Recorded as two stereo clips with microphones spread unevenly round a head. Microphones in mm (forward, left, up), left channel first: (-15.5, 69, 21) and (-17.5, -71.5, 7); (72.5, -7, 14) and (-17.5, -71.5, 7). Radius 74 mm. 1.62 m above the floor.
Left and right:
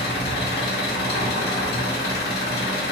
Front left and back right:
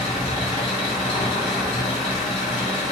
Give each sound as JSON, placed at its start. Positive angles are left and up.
{"t": 0.0, "sound": "an engine running", "azimuth_deg": 95, "distance_m": 0.9}